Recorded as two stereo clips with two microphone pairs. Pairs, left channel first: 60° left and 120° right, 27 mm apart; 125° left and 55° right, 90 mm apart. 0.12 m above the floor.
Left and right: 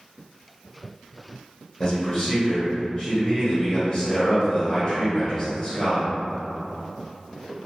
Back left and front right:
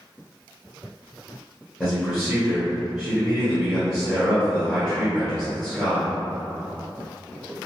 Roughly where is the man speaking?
Ahead.